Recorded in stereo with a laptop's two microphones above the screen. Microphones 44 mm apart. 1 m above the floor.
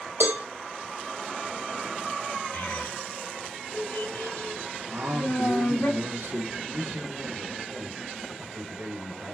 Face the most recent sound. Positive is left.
turn(degrees=-80)